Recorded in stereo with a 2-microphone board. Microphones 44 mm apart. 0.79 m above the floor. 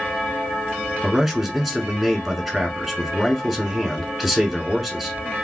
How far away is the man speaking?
About 1.4 m.